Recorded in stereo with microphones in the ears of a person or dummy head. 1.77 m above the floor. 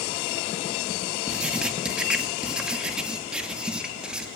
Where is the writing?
5° right (ahead or behind), 2.5 m.